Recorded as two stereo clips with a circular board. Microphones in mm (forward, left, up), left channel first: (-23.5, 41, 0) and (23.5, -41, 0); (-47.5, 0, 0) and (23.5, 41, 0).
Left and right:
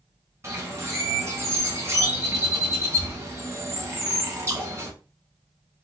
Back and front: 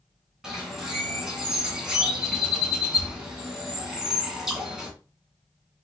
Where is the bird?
45° right, 1.8 m.